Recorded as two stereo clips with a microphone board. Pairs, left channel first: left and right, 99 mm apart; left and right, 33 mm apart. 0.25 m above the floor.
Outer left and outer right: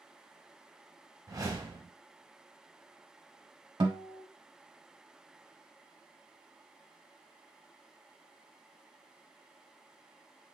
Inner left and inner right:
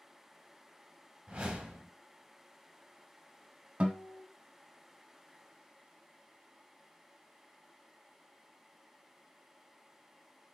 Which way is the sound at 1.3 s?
35° right (ahead or behind).